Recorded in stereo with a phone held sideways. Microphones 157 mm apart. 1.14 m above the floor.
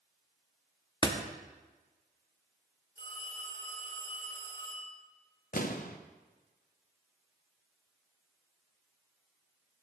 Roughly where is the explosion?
Left.